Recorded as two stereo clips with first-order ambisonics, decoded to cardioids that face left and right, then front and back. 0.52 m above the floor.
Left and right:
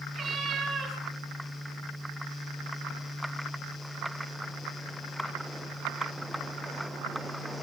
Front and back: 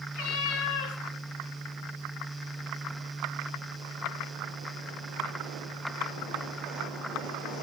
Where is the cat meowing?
10° right, 3.5 m.